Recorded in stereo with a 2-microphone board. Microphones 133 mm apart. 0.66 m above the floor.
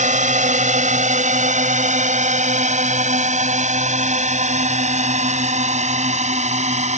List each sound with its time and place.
0.0 s a drone: 65° right (ahead or behind); by 7.0 s 60° right (ahead or behind)